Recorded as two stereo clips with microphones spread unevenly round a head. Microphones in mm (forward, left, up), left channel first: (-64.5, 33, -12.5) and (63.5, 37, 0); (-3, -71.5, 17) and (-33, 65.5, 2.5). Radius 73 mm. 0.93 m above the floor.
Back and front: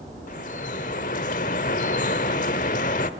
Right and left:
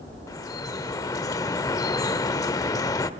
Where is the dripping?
140° right, 1.1 m.